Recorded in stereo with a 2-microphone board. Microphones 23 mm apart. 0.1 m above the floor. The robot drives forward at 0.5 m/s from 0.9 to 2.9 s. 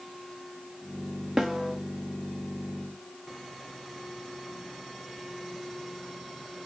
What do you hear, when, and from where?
1.4 s a snare drum: 20° right (ahead or behind), 1.8 m; by 1.8 s 25° right (ahead or behind), 1.6 m